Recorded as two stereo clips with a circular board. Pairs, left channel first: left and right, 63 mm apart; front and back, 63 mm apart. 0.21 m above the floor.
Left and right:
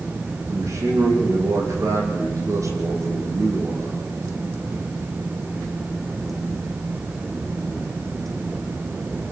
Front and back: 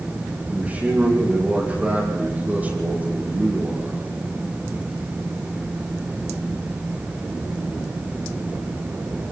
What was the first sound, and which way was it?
A man speaking, 115° right.